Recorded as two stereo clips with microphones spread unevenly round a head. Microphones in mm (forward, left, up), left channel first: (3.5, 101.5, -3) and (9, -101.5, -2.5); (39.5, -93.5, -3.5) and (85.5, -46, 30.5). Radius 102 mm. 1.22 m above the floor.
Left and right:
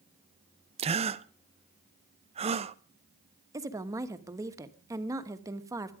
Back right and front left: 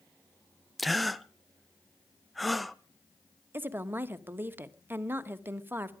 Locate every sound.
0.8 s a gasp: 110° right, 0.7 m
3.5 s a woman speaking: 15° right, 1.3 m